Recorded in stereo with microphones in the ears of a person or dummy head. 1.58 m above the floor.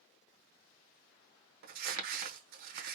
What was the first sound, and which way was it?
Crumpling, 55° right (ahead or behind).